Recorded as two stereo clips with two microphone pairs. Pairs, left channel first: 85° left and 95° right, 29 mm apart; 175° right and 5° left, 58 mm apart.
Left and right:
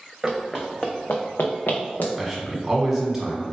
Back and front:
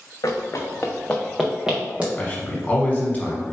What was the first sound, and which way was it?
Running footsteps, straight behind.